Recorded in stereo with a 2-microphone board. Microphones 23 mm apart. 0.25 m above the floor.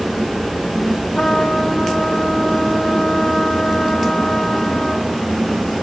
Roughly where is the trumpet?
Left.